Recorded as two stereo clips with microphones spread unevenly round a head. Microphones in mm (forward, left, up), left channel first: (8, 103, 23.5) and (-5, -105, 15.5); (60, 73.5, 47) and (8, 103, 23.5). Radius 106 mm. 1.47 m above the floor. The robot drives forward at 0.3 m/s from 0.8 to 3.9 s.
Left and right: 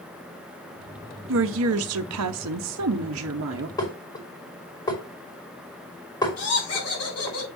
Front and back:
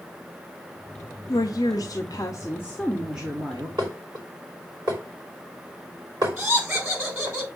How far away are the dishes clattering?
About 3 m.